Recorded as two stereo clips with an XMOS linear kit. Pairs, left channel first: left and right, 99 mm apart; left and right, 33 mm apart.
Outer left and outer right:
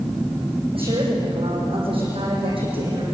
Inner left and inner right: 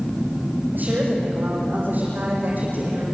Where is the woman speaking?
60° right (ahead or behind), 9 m; by 3.0 s 55° right (ahead or behind), 7.5 m.